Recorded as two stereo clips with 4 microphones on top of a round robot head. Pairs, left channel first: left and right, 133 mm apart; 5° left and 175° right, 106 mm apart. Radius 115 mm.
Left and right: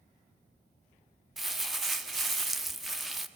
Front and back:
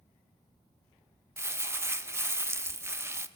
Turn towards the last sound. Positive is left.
turn(degrees=-175)